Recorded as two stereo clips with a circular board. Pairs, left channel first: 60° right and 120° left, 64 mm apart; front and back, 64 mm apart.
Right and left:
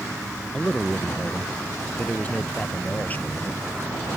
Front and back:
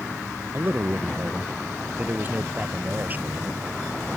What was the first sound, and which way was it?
A man speaking, 130° right.